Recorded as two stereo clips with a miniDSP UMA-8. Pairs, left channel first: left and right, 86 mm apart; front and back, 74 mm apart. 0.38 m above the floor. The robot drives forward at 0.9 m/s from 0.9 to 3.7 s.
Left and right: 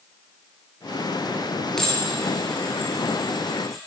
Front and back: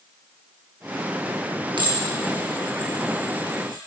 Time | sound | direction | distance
1.8 | dishes clattering | 175° left | 4.5 m